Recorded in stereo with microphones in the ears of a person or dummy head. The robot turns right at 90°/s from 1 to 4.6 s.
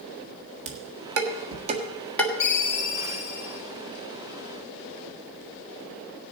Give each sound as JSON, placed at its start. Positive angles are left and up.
{"t": 0.7, "sound": "dishes clattering", "side_deg": -75, "distance_m": 1.5}
{"t": 2.4, "sound": "a ringtone", "azimuth_deg": 40, "distance_m": 1.4}